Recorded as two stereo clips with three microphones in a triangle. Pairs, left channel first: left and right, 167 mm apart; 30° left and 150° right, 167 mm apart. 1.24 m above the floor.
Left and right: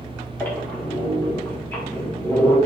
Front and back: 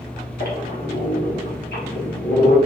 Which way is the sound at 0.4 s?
10° left.